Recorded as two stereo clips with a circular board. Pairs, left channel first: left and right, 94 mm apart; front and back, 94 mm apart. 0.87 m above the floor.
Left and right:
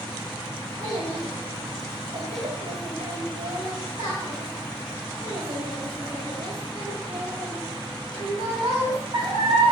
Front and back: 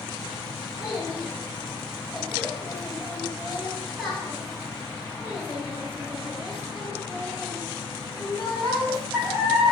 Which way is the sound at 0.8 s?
95° right.